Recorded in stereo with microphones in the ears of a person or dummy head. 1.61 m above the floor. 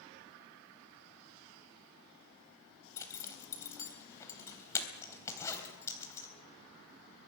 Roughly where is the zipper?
Centre.